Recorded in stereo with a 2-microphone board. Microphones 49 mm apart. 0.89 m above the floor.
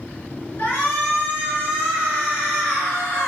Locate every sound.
0.6 s a shout: 50° left (ahead or behind), 2.0 m